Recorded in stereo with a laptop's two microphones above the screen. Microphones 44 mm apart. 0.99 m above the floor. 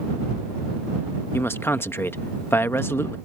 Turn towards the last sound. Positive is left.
turn(degrees=60)  # may be behind; listen again after turning